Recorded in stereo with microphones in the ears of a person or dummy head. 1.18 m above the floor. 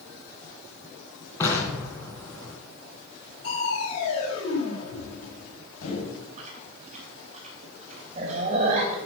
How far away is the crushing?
About 4.5 m.